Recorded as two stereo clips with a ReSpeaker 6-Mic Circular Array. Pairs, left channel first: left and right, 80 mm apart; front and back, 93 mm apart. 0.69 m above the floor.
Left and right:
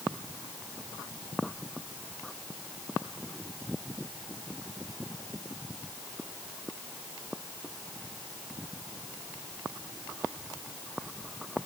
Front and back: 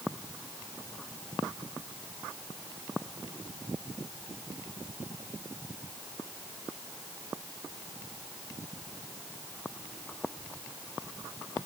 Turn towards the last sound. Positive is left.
No sound to turn to.